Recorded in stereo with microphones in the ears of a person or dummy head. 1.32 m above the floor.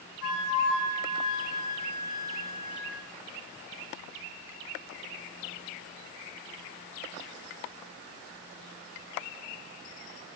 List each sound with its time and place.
0.2 s a flute: 75° left (ahead or behind), 3.5 m